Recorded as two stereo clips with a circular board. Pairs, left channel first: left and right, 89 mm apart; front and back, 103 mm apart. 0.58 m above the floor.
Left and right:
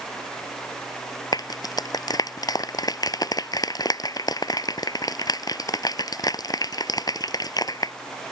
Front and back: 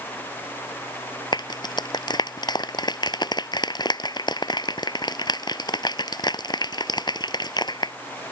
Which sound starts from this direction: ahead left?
A clap, at 1.3 s.